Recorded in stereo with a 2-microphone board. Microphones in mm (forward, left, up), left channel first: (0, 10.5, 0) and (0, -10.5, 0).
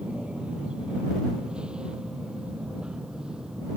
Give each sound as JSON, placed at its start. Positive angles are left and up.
{"t": 0.0, "sound": "an aircraft", "side_deg": -50}